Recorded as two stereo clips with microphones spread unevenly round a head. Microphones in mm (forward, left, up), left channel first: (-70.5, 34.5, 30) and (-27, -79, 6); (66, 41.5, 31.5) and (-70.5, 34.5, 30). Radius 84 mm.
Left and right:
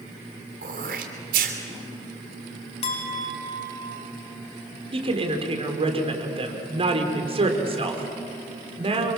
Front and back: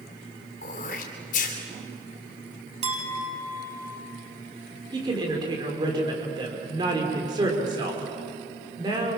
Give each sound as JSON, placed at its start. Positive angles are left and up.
{"t": 0.6, "sound": "throat clearing", "azimuth_deg": -40, "distance_m": 3.0}
{"t": 2.8, "sound": "a clink", "azimuth_deg": 140, "distance_m": 5.5}
{"t": 4.9, "sound": "a woman speaking", "azimuth_deg": -110, "distance_m": 4.5}